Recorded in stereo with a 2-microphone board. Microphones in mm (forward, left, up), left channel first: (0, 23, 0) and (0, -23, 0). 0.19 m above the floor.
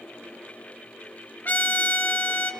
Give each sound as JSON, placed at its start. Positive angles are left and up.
{"t": 1.4, "sound": "a trumpet", "side_deg": 40, "distance_m": 2.5}